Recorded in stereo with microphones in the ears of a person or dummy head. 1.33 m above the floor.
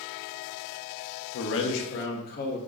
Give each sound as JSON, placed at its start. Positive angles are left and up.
{"t": 1.3, "sound": "a man speaking", "side_deg": 85, "distance_m": 0.7}